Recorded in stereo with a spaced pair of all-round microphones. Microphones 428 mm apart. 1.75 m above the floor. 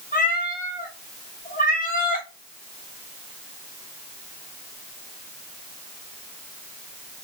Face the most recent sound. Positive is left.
turn(degrees=20)  # may be behind; listen again after turning